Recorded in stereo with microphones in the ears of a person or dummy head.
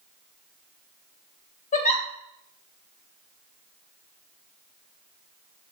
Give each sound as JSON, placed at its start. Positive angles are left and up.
{"t": 1.7, "sound": "a giggle", "side_deg": 40, "distance_m": 2.5}